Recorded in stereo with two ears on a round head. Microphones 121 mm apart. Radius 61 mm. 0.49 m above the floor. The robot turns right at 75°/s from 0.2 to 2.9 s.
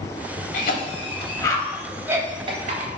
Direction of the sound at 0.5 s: 70° left (ahead or behind).